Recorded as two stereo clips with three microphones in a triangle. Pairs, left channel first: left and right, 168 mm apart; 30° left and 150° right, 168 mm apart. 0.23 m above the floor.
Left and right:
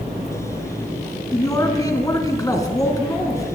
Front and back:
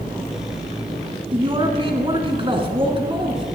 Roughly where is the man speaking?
Behind left.